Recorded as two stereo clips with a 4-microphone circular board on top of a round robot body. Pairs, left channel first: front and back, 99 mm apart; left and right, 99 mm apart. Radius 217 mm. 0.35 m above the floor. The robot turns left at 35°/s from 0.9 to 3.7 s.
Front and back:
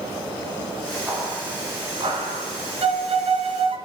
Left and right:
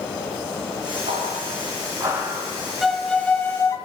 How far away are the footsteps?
About 3.5 m.